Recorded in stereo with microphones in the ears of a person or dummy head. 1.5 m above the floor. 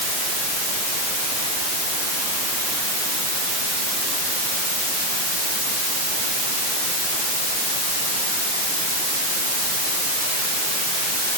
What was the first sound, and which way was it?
Only background noise.